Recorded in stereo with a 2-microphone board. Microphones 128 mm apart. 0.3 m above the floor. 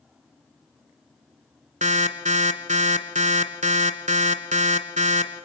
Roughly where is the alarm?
Right.